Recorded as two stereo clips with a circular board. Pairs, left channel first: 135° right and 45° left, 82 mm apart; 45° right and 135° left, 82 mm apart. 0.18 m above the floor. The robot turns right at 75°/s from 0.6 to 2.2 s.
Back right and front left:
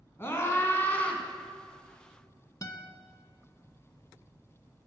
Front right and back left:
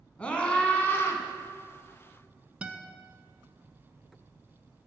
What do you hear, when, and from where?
0.2 s a scream: 105° right, 1.3 m; by 1.2 s 60° right, 1.3 m
2.6 s a guitar: 155° right, 0.7 m